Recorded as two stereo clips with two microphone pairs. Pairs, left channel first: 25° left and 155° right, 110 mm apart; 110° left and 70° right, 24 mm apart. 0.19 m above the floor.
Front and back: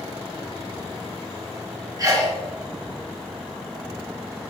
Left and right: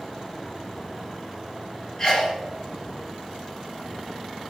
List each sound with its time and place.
2.0 s a sneeze: 155° left, 2.5 m